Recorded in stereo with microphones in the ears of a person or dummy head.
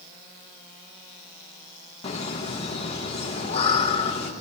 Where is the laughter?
35° left (ahead or behind), 1.5 m.